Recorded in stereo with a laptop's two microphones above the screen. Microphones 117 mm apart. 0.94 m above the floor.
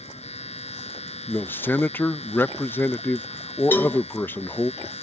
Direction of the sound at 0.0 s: 65° left (ahead or behind).